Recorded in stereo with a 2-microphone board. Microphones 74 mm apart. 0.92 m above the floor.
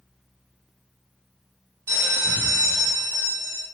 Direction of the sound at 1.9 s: 30° right (ahead or behind).